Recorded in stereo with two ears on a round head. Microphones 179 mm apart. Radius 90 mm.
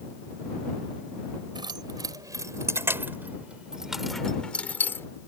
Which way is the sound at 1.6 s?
20° right (ahead or behind).